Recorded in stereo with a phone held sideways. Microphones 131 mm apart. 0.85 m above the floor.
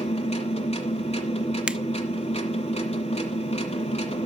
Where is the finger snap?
10° right (ahead or behind), 0.5 m.